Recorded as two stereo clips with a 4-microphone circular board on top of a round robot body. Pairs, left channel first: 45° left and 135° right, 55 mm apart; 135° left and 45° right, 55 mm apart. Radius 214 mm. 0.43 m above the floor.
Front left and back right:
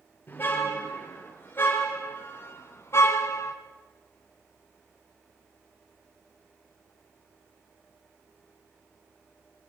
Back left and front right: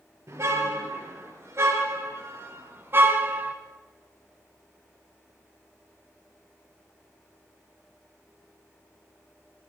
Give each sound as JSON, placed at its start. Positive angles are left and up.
{"t": 0.3, "sound": "a car horn", "azimuth_deg": -10, "distance_m": 5.0}